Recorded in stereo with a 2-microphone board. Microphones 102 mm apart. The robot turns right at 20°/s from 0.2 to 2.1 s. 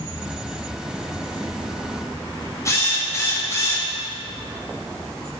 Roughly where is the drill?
Left.